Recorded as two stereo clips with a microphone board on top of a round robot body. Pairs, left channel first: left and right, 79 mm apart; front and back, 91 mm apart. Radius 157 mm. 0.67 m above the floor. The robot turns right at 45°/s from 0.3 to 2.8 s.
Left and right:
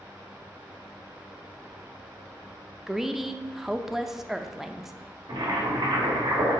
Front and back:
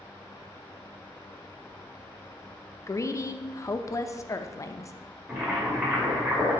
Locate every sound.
2.9 s a woman speaking: 5° right, 0.6 m
5.3 s boiling: 115° right, 1.9 m